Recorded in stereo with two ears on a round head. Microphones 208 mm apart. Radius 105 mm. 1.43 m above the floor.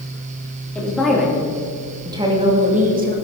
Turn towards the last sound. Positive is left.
turn(degrees=-40)  # may be behind; listen again after turning